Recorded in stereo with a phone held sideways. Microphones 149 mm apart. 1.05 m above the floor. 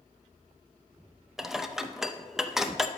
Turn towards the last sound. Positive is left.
turn(degrees=-5)  # may be behind; listen again after turning